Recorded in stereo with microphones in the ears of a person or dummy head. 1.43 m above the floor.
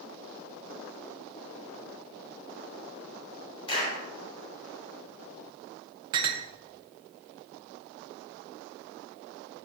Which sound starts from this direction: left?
A clap, at 3.7 s.